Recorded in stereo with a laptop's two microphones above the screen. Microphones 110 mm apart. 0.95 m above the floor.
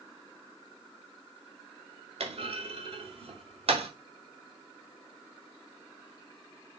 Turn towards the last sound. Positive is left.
turn(degrees=-60)  # may be behind; listen again after turning